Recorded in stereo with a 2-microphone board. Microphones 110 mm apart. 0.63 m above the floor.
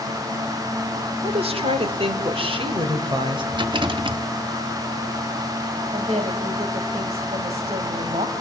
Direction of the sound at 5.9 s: 80° right.